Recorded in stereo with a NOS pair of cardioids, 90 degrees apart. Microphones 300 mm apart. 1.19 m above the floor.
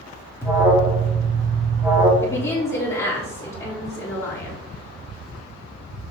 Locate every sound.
0.4 s an alarm: 10° right, 2.5 m
2.2 s a woman speaking: 10° left, 3.5 m